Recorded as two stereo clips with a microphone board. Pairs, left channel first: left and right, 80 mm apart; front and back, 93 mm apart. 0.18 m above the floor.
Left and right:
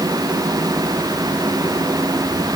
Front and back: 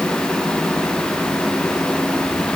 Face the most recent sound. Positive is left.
No sound to turn to.